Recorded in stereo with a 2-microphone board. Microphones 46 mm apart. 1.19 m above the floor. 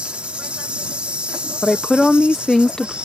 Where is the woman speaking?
15° left (ahead or behind).